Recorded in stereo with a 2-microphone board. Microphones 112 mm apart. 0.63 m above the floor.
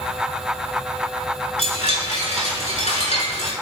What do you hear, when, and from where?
1.6 s a chime: 80° left, 5.5 m